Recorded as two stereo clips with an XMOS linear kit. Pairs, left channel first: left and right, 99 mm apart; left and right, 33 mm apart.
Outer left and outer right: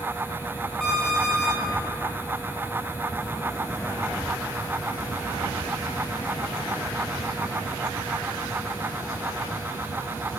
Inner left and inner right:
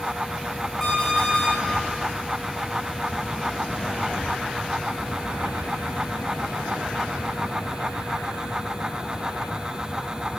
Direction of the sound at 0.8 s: 5° left (ahead or behind).